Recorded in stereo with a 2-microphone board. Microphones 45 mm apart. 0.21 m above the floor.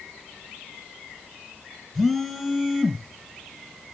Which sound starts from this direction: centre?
A phone buzzing, at 1.9 s.